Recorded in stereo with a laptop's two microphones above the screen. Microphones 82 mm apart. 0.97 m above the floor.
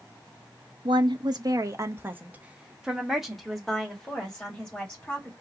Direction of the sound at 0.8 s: 70° right (ahead or behind).